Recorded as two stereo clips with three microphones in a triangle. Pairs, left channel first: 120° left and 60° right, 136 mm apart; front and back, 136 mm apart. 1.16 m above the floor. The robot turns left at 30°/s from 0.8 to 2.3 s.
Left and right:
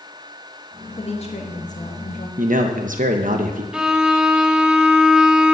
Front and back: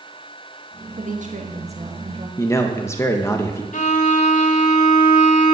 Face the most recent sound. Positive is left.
turn(degrees=25)